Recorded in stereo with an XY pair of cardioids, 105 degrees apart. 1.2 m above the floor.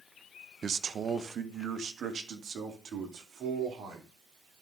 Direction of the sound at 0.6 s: 45° right.